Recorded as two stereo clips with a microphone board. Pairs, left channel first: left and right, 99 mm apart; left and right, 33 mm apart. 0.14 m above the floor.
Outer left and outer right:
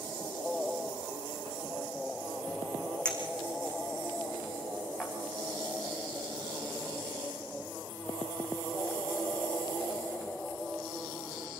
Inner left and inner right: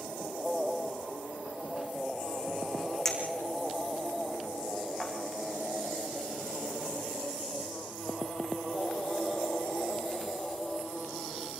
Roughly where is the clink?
Centre.